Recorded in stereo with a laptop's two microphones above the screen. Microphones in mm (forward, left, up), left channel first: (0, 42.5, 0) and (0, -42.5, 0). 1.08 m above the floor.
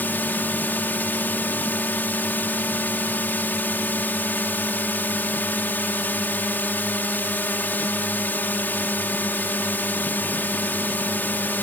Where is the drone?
20° left (ahead or behind).